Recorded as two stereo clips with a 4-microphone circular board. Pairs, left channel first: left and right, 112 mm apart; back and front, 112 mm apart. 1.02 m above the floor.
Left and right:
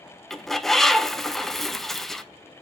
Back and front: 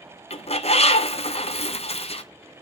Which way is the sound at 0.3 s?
Straight behind.